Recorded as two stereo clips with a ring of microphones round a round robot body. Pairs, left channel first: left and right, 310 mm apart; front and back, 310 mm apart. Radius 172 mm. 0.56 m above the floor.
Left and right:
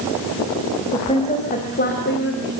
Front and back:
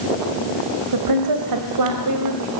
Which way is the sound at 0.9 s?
165° left.